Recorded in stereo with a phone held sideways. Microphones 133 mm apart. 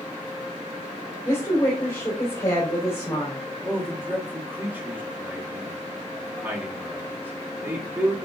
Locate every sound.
1.2 s a woman speaking: 20° left (ahead or behind), 3 m
3.6 s a man speaking: 15° right (ahead or behind), 1.7 m